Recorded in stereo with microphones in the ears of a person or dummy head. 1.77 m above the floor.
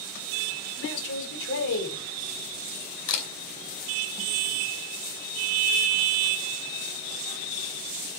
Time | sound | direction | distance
0.8 | a man speaking | 70° left (ahead or behind) | 7 m
3.1 | a camera shutter | 70° left (ahead or behind) | 4.5 m